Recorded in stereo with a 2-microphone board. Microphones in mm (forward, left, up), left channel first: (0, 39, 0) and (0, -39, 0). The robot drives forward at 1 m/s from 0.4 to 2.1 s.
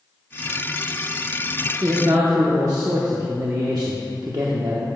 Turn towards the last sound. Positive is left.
turn(degrees=-55)  # may be behind; listen again after turning